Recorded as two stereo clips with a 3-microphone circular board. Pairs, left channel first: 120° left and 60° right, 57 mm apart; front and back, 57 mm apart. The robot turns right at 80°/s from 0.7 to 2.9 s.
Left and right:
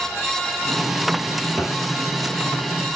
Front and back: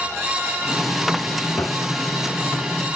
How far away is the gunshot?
About 0.8 m.